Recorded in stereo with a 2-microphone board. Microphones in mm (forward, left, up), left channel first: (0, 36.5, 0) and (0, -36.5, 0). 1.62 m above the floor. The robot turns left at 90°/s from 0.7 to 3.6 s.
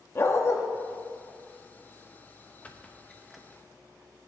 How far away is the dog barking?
About 1.2 m.